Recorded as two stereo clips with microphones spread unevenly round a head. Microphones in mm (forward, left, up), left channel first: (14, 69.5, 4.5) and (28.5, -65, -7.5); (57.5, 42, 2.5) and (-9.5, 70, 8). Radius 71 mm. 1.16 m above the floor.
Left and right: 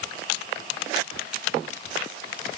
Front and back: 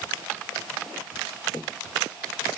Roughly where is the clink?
I don't hear a clink.